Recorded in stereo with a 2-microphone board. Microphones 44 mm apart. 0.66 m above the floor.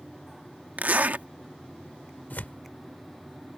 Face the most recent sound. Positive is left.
turn(degrees=40)  # may be behind; listen again after turning